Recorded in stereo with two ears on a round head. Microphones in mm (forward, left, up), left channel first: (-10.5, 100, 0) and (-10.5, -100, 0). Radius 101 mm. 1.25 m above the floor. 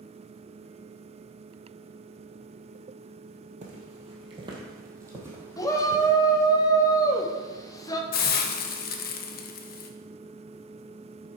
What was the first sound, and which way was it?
Footsteps, 35° right (ahead or behind).